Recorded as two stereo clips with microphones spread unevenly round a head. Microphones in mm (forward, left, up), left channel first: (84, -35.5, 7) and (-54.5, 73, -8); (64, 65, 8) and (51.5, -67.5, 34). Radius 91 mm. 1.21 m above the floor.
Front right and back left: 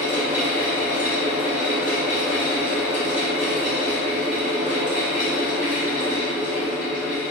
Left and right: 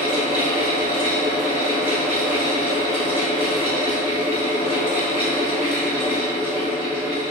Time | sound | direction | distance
0.0 | a fan | 130° right | 1.2 m